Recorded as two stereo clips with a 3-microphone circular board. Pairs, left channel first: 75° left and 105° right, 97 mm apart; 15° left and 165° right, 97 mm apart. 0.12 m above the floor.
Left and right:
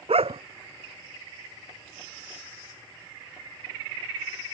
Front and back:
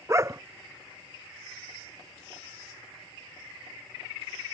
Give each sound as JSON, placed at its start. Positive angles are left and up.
{"t": 0.1, "sound": "a dog barking", "azimuth_deg": -105}